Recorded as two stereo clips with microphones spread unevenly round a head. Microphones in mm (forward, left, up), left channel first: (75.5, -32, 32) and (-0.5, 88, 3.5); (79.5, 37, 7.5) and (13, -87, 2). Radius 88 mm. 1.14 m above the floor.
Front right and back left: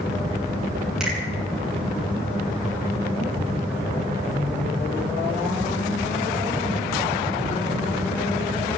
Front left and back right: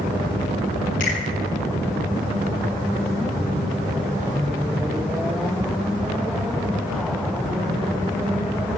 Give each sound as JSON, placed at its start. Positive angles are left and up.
{"t": 1.0, "sound": "a finger snap", "azimuth_deg": 35, "distance_m": 8.5}